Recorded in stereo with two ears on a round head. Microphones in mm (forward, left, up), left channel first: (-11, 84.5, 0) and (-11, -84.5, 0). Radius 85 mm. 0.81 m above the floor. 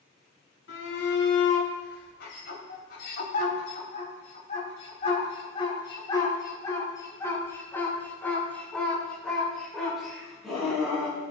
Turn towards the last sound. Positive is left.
turn(degrees=-5)  # may be behind; listen again after turning